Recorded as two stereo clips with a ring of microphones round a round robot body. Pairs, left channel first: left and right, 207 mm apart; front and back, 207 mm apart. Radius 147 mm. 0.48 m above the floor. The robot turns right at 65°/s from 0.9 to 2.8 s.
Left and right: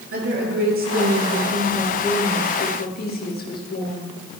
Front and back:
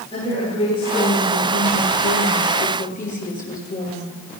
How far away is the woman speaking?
About 9 m.